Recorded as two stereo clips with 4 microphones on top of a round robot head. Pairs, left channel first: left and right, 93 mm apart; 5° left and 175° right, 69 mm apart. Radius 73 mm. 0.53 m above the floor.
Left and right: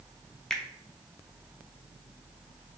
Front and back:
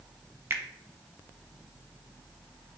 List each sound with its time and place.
0.5 s a finger snap: 170° left, 0.5 m